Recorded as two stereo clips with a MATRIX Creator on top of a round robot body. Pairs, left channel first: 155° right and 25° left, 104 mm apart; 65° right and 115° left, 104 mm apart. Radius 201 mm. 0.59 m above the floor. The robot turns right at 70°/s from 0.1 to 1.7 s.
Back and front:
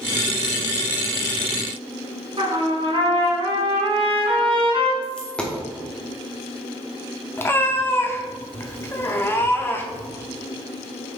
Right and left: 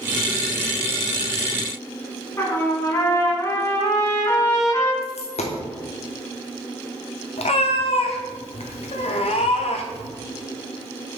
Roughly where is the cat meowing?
Right.